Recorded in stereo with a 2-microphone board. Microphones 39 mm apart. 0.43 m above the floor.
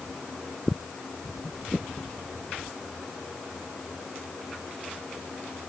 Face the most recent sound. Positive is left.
No sound to turn to.